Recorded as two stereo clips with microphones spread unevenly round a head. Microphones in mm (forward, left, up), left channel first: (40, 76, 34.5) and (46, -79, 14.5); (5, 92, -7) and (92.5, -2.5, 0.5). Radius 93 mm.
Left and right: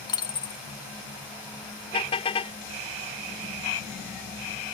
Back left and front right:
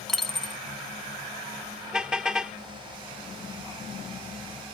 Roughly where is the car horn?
Ahead left.